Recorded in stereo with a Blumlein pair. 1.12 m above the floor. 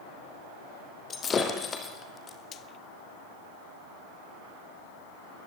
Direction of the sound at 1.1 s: 20° left.